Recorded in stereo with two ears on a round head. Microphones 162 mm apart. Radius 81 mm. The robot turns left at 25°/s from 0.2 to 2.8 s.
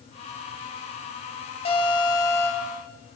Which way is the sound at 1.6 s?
30° left (ahead or behind).